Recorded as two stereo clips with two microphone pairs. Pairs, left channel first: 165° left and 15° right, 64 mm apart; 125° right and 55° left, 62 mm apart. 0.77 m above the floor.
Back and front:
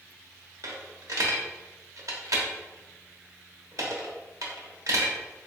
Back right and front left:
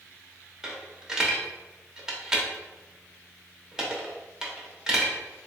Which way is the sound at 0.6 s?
20° right.